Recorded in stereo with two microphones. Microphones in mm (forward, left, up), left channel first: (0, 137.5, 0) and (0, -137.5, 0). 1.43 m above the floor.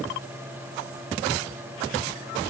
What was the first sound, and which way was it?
Only background noise.